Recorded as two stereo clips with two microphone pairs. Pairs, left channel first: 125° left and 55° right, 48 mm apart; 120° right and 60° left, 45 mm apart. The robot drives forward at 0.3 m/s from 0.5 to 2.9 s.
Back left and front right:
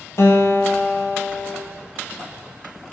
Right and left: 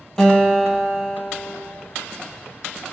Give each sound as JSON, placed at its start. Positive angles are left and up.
{"t": 0.2, "sound": "a guitar", "azimuth_deg": 160, "distance_m": 0.8}